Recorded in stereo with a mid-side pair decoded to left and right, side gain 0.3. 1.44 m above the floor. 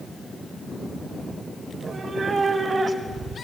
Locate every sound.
1.7 s a cat meowing: 60° right, 3 m; by 3.4 s 45° right, 4 m